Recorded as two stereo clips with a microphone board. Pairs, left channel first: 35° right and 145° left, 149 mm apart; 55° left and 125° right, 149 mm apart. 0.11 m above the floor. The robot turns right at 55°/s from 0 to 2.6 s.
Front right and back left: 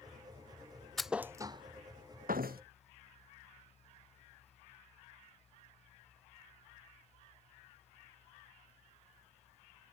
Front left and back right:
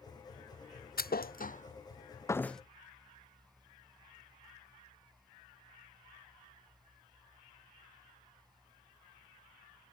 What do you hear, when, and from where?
1.0 s a thud: 55° left; by 2.6 s 145° left